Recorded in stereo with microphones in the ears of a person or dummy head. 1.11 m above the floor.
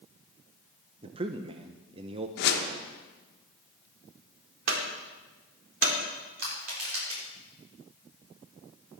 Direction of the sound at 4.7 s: 80° right.